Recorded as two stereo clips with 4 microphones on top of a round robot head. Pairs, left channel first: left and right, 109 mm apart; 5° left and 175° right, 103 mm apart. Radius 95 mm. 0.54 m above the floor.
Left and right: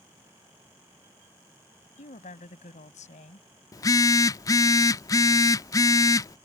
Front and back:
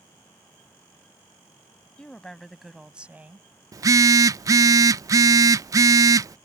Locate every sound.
2.0 s a woman speaking: 85° left; by 3.5 s 115° left
3.7 s a phone buzzing: 140° left